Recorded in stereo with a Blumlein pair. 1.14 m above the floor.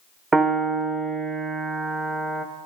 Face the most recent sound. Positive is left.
turn(degrees=-15)